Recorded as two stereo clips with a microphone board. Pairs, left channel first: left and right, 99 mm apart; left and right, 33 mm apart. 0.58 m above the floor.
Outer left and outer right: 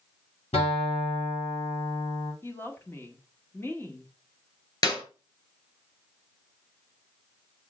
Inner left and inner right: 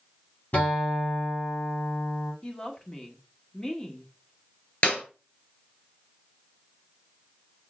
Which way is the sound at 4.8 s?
45° left (ahead or behind).